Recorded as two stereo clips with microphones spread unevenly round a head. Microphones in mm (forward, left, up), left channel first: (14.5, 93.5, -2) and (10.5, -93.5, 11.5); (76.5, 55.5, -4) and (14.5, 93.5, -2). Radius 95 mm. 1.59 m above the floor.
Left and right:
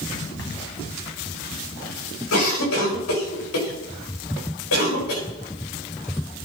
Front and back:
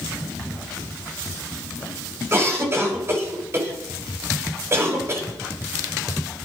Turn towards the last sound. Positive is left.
turn(degrees=95)